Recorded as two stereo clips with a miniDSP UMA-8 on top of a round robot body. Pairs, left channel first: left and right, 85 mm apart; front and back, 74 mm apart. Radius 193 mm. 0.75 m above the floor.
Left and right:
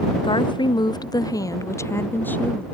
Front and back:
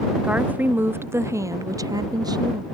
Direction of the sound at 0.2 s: 105° left.